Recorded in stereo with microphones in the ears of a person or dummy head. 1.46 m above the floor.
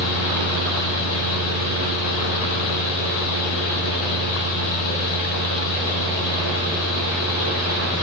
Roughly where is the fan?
Left.